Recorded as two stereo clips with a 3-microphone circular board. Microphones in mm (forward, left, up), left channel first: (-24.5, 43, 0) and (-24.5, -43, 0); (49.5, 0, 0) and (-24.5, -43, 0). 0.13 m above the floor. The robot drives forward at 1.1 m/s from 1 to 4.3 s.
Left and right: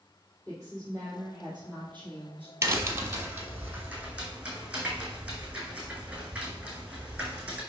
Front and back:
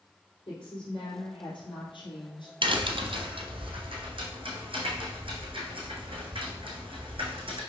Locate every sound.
0.5 s a woman speaking: 15° left, 3.5 m; by 2.5 s 30° left, 2.5 m
2.6 s a crack: 145° right, 1.2 m; by 7.6 s 170° right, 3 m